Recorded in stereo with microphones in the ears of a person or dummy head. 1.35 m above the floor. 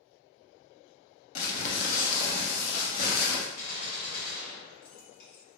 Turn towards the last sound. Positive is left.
turn(degrees=65)  # may be behind; listen again after turning